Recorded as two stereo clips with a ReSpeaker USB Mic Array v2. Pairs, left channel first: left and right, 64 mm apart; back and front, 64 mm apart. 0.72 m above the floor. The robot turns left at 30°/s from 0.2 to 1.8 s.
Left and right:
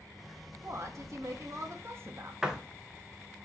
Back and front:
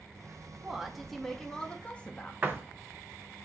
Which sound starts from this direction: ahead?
A door slam, at 2.4 s.